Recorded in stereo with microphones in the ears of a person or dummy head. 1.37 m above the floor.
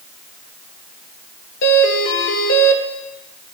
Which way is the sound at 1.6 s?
70° left (ahead or behind).